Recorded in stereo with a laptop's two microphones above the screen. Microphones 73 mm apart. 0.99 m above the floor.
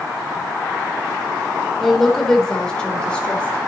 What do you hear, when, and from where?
1.8 s a woman speaking: centre (ahead or behind), 4 m; by 3.6 s 15° left (ahead or behind), 4.5 m